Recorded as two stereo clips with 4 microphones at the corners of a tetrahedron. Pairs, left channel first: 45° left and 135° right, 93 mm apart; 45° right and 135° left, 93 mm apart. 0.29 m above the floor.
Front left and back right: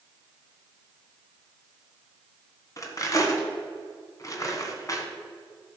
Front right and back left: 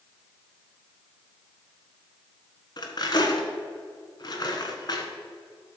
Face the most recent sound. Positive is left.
turn(degrees=-5)